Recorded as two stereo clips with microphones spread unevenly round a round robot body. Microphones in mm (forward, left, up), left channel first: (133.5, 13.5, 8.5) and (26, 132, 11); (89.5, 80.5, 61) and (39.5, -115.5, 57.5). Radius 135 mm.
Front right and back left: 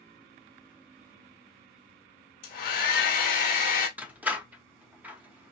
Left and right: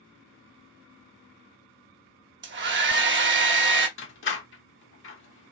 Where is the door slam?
50° left, 1.0 m.